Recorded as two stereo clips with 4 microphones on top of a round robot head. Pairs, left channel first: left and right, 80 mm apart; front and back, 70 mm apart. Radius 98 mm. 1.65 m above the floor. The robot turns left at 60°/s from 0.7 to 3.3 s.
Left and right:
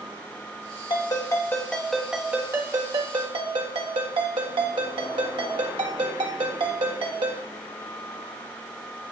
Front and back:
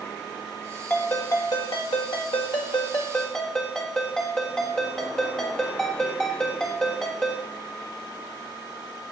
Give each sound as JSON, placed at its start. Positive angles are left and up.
{"t": 0.9, "sound": "a ringtone", "azimuth_deg": 65, "distance_m": 1.5}